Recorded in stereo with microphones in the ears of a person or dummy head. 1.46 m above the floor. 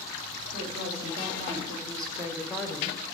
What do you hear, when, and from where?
0.5 s a woman speaking: 45° right (ahead or behind), 2.5 m; by 3.0 s 30° left (ahead or behind), 0.7 m